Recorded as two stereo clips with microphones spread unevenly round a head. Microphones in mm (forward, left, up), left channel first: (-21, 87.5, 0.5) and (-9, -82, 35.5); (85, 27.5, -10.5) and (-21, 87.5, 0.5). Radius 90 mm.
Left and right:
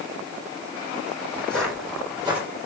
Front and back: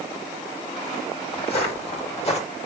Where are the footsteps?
5° left, 3 m; by 2.4 s 15° right, 3 m.